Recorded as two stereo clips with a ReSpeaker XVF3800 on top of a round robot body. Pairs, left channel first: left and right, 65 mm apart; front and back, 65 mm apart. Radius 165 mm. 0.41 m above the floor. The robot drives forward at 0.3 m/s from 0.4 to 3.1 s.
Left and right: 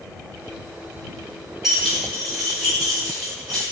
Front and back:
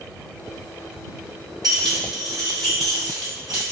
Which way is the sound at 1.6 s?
175° right.